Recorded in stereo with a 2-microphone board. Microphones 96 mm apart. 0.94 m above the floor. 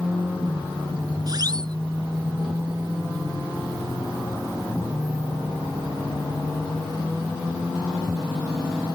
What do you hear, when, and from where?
1.3 s a siren: 45° right (ahead or behind)